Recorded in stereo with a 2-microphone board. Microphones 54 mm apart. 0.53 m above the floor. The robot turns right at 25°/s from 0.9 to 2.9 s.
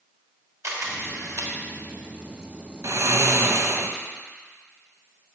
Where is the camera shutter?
65° right (ahead or behind), 1.6 m; by 1.5 s 60° right (ahead or behind), 1.6 m.